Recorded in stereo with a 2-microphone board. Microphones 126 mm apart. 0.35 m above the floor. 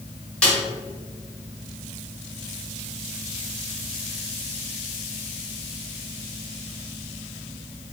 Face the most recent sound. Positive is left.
turn(degrees=10)  # may be behind; listen again after turning